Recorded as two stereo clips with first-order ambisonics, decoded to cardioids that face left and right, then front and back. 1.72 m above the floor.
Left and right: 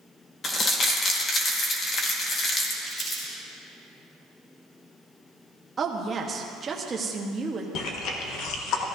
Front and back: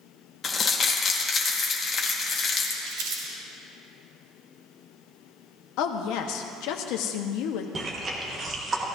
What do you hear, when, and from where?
0.4 s crumpling: 50° left, 1.2 m
2.9 s crumpling: 165° left, 3.5 m
5.8 s a woman speaking: 20° right, 1.1 m
7.8 s chewing: 115° left, 1.3 m